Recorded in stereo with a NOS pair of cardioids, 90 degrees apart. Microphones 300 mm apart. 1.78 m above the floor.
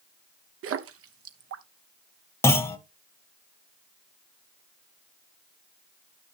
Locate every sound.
0.6 s a splash: 50° right, 0.8 m
2.4 s a clunk: 10° left, 1.0 m